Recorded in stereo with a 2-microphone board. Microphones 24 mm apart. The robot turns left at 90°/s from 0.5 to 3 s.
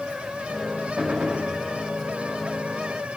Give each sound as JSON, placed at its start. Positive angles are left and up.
{"t": 1.0, "sound": "a gunshot", "azimuth_deg": -40, "distance_m": 7.5}